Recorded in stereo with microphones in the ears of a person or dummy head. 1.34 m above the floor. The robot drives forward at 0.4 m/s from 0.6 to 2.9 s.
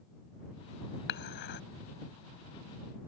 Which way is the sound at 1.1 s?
65° left (ahead or behind).